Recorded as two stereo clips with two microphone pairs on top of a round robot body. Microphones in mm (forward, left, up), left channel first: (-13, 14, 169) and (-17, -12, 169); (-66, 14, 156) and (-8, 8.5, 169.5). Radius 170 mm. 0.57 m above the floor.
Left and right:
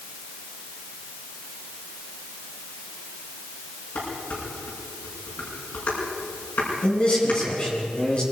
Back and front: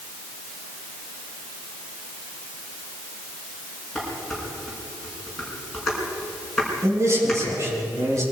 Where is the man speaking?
30° left, 7 m.